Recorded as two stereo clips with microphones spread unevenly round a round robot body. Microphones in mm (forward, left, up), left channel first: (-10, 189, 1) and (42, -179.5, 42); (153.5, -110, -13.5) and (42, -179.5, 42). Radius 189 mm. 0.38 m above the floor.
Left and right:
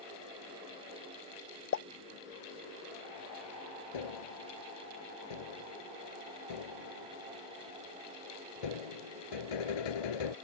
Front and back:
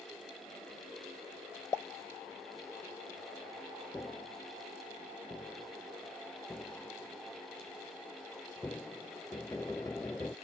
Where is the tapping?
115° left.